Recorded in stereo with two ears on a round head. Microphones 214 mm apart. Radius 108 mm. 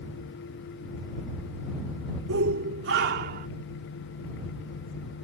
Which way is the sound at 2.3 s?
60° right (ahead or behind).